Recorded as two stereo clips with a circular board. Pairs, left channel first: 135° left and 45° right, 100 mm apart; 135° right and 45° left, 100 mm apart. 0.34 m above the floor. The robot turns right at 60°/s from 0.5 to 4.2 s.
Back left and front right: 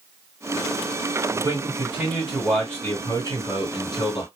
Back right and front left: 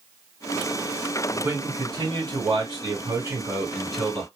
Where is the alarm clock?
I don't hear an alarm clock.